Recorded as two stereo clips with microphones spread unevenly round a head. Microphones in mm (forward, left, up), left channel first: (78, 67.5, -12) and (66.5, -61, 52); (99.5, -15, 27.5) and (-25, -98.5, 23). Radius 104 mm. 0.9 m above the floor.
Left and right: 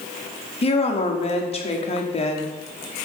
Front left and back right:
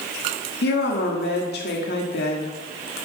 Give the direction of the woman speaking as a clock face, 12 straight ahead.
10 o'clock.